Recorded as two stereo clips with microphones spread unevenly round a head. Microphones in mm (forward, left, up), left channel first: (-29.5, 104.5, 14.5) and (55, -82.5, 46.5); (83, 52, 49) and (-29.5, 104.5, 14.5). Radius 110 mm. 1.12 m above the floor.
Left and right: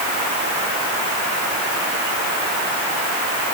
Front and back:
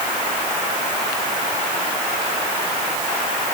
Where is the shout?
I don't hear a shout.